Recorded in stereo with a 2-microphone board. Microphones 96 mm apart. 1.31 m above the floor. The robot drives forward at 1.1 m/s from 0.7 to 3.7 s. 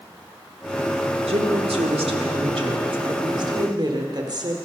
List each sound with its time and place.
1.3 s a woman speaking: 85° right, 2.5 m; by 4.7 s 50° right (ahead or behind), 3.5 m